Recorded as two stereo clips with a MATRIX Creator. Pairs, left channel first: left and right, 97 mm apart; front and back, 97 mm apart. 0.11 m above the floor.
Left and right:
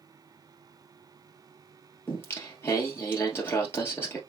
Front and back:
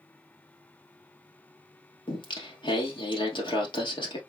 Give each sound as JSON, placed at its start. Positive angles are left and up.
{"t": 2.1, "sound": "singing", "azimuth_deg": 25, "distance_m": 2.0}